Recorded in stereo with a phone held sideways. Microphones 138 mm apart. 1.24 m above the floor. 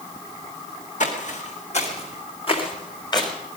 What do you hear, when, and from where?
1.0 s footsteps: 60° left (ahead or behind), 3 m; by 3.3 s 30° left (ahead or behind), 3 m